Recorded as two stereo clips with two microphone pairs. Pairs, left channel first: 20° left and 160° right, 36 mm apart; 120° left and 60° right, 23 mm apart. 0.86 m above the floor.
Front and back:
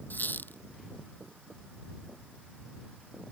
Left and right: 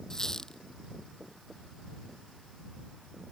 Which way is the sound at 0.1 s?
55° left.